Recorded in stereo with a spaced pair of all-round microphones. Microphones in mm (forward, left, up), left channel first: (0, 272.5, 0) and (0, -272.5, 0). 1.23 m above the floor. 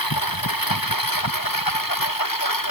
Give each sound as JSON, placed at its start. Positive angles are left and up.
{"t": 0.0, "sound": "a lawn mower", "side_deg": 40}